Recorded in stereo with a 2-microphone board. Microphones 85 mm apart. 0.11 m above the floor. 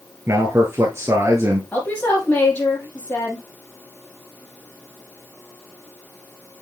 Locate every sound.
0.3 s a man speaking: 35° right (ahead or behind), 1.5 m
1.7 s a woman speaking: 20° left (ahead or behind), 3.5 m